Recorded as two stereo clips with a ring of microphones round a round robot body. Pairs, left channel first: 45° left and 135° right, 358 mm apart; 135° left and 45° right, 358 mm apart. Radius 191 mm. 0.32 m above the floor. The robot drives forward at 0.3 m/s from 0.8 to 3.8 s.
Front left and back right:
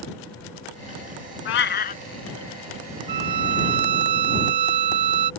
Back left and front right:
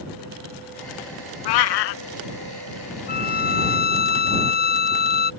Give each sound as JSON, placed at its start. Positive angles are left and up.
{"t": 1.4, "sound": "a cat meowing", "azimuth_deg": 105}
{"t": 3.1, "sound": "a violin", "azimuth_deg": -160}